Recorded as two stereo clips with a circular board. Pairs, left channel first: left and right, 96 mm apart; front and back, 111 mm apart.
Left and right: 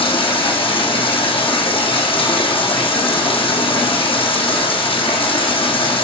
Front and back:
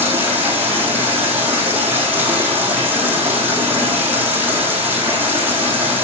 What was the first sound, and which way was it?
Running water, 105° left.